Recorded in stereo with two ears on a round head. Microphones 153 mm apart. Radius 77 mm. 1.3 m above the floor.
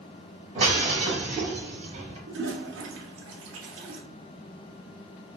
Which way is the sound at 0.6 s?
35° right (ahead or behind).